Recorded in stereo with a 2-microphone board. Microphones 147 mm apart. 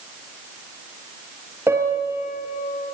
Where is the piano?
15° right (ahead or behind), 2.5 m.